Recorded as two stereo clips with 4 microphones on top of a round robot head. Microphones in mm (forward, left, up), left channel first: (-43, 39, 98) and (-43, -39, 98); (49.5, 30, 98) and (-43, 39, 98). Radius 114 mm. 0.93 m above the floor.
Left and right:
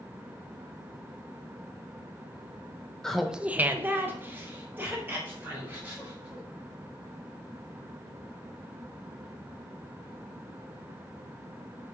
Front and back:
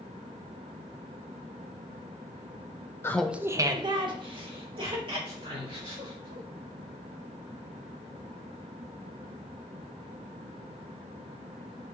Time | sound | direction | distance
3.0 | laughter | 20° left | 0.5 m